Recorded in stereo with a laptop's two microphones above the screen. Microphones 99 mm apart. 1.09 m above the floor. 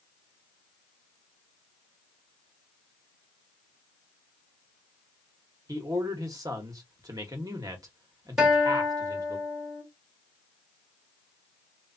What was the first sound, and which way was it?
A man speaking, 40° right (ahead or behind).